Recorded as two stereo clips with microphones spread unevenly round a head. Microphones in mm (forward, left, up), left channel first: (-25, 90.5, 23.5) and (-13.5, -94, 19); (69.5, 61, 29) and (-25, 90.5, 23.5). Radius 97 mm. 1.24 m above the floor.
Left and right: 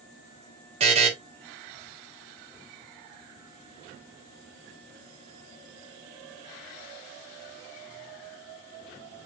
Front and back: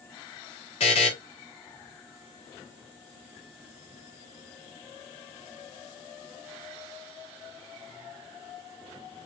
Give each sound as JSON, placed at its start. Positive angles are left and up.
{"t": 0.8, "sound": "a buzzer", "azimuth_deg": -25, "distance_m": 1.0}